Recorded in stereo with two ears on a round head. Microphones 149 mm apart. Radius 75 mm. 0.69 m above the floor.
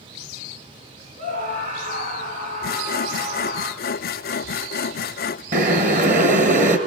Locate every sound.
1.2 s a scream: 50° right (ahead or behind), 9.5 m; by 3.6 s 45° right (ahead or behind), 8.5 m
2.6 s sawing: 55° left (ahead or behind), 0.5 m
5.5 s boiling: 45° right (ahead or behind), 2.5 m